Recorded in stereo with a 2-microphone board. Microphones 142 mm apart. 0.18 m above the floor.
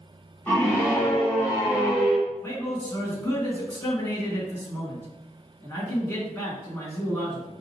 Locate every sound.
0.5 s a scream: 15° left (ahead or behind), 1.6 m; by 2.2 s 25° left (ahead or behind), 2 m
2.3 s a man speaking: 15° left (ahead or behind), 1.8 m